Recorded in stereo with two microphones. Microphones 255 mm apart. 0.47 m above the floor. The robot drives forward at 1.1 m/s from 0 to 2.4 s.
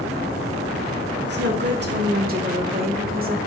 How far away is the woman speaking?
About 1.6 m.